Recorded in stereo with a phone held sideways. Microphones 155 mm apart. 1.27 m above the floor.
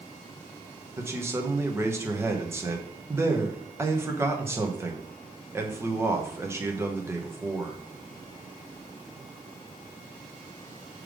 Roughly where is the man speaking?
Centre.